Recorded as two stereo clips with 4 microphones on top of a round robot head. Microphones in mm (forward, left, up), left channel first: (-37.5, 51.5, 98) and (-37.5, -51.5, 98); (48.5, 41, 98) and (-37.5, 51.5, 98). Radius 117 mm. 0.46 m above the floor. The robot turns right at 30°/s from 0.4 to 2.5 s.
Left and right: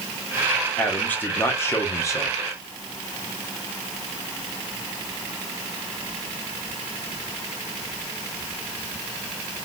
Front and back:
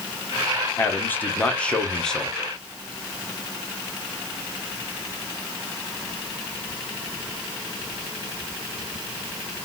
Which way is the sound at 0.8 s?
30° left.